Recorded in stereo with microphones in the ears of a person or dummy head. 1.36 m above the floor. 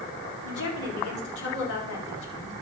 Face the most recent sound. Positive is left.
turn(degrees=70)  # may be behind; listen again after turning